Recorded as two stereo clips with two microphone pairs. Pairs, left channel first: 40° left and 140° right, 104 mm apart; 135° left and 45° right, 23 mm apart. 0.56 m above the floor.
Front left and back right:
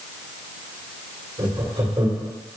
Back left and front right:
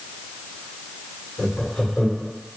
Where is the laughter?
150° right, 2 m.